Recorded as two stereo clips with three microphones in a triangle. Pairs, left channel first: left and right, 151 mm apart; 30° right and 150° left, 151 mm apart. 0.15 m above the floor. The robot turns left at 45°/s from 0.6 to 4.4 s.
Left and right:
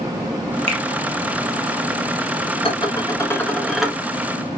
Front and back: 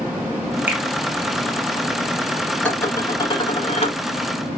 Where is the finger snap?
135° right, 1.7 m; by 0.8 s 140° right, 1.7 m.